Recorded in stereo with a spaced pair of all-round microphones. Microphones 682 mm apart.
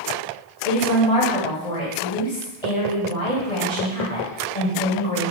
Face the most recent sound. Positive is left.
turn(degrees=55)  # may be behind; listen again after turning